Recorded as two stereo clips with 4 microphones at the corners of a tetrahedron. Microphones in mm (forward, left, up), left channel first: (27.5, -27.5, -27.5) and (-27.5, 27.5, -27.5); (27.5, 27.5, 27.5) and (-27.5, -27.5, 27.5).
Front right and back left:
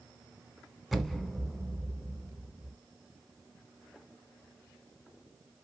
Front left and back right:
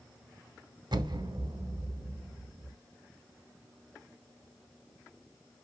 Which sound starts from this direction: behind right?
An explosion, at 0.9 s.